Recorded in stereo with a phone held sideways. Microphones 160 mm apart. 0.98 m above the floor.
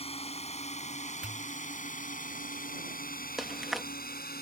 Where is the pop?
5° right (ahead or behind).